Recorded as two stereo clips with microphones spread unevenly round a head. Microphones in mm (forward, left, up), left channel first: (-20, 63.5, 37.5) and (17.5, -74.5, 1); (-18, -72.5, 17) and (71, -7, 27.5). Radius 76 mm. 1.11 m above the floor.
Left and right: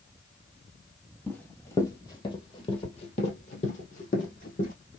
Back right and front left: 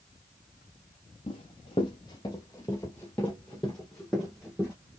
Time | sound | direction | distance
1.3 | running footsteps | 170° left | 1.8 m